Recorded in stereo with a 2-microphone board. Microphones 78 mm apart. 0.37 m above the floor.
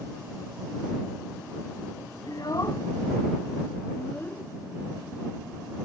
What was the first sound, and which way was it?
A child speaking, 55° left (ahead or behind).